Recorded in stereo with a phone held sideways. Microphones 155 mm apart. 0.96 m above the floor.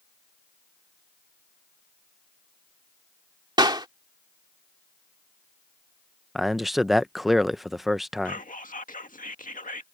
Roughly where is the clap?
Right.